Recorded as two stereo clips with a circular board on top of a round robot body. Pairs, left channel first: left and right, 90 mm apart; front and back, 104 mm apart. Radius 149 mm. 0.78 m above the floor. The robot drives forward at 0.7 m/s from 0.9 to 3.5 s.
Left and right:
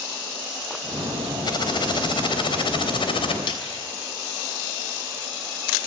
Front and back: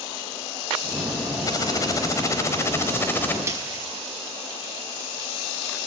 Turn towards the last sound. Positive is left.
turn(degrees=115)